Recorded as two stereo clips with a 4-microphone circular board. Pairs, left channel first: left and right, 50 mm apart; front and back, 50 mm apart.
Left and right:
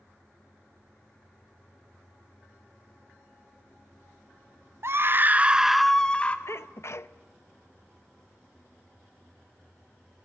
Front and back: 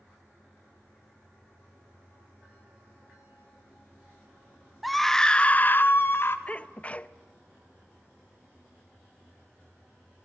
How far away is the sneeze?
About 0.7 m.